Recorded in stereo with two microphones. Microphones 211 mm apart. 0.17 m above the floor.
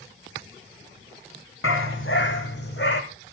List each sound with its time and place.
1.6 s a dog barking: 70° left (ahead or behind), 1.9 m; by 3.0 s 55° left (ahead or behind), 2.5 m